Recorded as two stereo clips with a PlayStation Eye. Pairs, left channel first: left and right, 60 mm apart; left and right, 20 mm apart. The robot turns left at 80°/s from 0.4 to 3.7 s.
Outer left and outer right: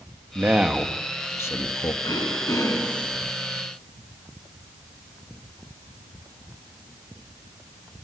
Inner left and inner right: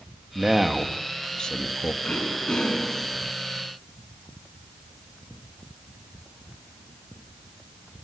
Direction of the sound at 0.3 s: 145° right.